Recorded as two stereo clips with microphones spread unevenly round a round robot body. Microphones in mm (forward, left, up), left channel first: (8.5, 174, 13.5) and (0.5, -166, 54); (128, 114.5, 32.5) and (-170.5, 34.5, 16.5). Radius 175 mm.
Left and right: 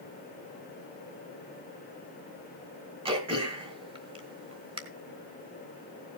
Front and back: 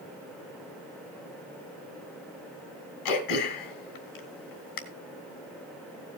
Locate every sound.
3.0 s throat clearing: 15° right, 3 m